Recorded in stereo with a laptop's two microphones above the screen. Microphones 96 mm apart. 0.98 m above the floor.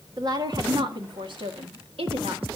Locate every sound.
0.2 s a woman speaking: 40° right (ahead or behind), 2 m; by 2.5 s 75° right (ahead or behind), 2.5 m